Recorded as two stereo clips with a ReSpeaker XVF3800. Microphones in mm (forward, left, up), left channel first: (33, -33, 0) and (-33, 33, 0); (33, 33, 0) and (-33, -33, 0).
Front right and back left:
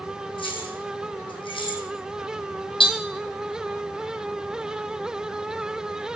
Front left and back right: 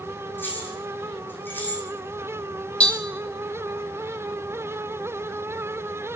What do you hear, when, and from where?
0.4 s keys jangling: 20° right, 3.5 m
2.8 s tapping: 30° right, 2 m